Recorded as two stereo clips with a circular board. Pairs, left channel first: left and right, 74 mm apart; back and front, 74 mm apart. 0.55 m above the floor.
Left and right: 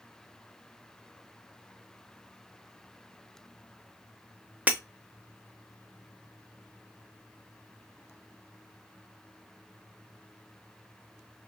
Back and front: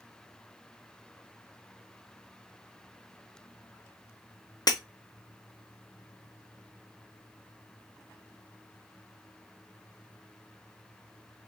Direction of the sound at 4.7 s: 155° right.